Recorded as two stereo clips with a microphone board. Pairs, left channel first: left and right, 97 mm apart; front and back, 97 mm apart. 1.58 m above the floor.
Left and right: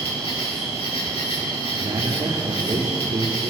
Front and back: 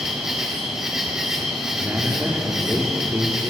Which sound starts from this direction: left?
An insect, at 0.0 s.